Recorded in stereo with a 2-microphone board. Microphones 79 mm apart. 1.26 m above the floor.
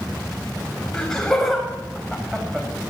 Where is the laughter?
10° left (ahead or behind), 6.5 m; by 2.7 s 5° right (ahead or behind), 6 m.